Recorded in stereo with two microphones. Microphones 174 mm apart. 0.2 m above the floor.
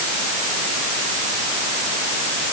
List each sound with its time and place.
Only background noise.